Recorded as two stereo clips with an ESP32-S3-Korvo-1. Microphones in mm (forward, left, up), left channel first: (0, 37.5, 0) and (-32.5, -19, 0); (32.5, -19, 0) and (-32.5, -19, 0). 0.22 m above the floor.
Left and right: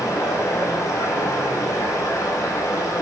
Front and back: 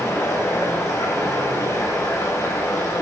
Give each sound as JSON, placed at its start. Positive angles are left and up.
{"t": 0.0, "sound": "running water", "azimuth_deg": 35, "distance_m": 6.0}